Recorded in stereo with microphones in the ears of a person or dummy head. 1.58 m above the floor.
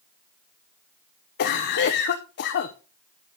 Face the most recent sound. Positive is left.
turn(degrees=55)  # may be behind; listen again after turning